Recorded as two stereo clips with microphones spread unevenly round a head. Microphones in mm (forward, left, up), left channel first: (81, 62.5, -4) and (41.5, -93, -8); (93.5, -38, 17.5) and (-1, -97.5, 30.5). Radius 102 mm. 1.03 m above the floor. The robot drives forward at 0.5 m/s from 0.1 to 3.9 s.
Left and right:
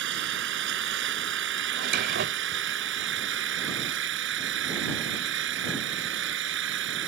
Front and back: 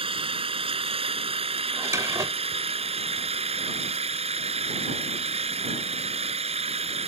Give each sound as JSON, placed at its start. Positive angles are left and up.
{"t": 0.0, "sound": "an engine running", "azimuth_deg": -115}
{"t": 1.7, "sound": "a drawer", "azimuth_deg": -85}